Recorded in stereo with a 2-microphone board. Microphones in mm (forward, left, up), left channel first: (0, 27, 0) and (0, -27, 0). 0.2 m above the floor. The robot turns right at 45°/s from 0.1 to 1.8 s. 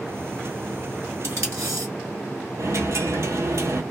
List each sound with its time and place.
1.2 s tape being pulled: 55° right (ahead or behind), 1.8 m; by 1.9 s 75° right (ahead or behind), 1.8 m
2.6 s a dropped coin: 60° right (ahead or behind), 0.8 m